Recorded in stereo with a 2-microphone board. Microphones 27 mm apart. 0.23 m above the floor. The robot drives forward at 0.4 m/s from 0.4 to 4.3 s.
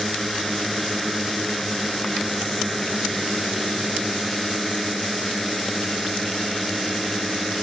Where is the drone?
5° left (ahead or behind).